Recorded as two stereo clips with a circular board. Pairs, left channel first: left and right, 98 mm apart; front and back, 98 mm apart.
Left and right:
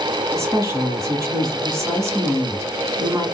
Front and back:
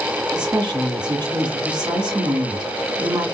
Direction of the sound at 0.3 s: 145° right.